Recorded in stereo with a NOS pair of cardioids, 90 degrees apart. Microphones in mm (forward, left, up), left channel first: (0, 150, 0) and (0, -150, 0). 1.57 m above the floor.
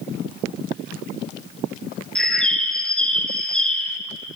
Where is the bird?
5° left, 0.7 m.